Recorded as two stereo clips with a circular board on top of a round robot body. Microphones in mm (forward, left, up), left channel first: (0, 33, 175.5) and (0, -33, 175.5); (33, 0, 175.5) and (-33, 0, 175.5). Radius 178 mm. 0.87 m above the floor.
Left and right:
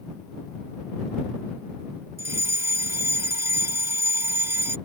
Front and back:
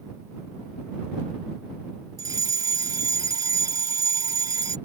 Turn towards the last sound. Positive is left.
turn(degrees=-140)